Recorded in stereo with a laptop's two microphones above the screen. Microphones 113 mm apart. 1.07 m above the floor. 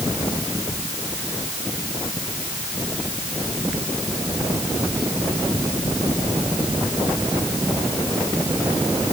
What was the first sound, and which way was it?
Only background noise.